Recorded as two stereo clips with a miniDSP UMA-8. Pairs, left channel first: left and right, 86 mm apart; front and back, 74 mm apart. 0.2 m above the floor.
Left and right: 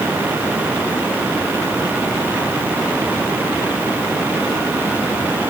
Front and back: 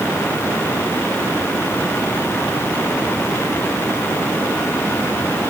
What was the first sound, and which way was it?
Only background noise.